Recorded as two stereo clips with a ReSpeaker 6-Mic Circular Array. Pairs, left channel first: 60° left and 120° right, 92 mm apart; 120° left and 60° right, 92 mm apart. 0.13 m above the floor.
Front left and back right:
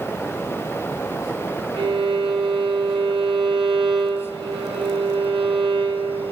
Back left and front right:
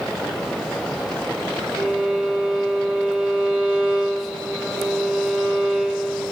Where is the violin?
135° right, 4 m.